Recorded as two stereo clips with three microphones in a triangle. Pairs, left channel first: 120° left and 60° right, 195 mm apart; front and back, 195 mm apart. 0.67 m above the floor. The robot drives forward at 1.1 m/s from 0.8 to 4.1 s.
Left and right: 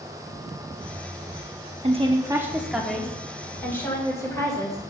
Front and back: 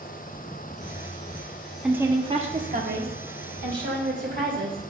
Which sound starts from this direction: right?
A woman speaking, at 1.8 s.